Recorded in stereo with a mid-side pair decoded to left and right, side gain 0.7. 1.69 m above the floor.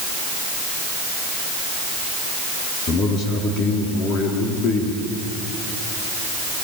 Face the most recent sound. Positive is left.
turn(degrees=45)